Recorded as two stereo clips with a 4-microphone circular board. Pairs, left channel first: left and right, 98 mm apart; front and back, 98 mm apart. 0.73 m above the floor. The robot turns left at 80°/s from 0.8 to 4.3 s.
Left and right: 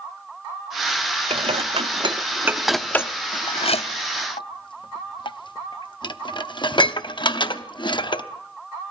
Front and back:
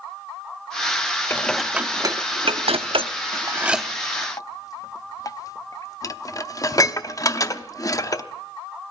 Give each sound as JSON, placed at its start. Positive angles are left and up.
{"t": 1.3, "sound": "dishes clattering", "azimuth_deg": -65, "distance_m": 0.7}